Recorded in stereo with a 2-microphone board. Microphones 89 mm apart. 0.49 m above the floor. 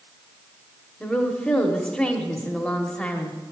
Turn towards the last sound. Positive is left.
turn(degrees=10)  # may be behind; listen again after turning